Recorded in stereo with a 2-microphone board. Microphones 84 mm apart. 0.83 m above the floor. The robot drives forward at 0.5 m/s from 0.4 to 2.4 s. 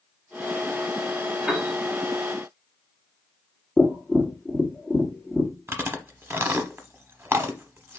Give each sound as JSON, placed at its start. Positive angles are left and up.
{"t": 1.5, "sound": "a piano", "side_deg": -10, "distance_m": 1.2}
{"t": 3.8, "sound": "tapping", "side_deg": 0, "distance_m": 1.4}
{"t": 5.7, "sound": "chewing", "side_deg": -30, "distance_m": 0.7}